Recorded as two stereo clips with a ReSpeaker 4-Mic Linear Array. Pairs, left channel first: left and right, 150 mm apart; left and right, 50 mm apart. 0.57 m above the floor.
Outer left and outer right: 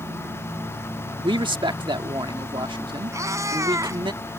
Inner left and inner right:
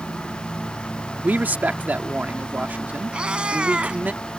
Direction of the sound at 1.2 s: 35° right (ahead or behind).